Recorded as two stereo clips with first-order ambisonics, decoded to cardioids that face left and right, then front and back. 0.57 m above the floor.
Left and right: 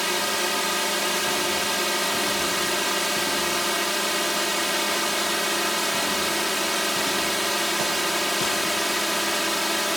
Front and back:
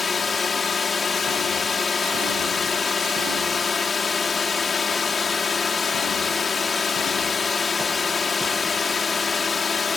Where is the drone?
Straight ahead.